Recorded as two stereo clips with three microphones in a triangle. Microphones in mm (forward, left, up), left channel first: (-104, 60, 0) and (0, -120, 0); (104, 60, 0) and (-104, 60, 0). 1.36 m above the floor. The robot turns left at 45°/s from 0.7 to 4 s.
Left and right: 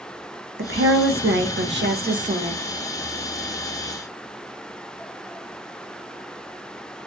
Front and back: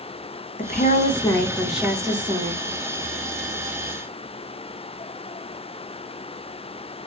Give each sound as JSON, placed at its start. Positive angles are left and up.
{"t": 0.6, "sound": "a woman speaking", "azimuth_deg": -45, "distance_m": 0.6}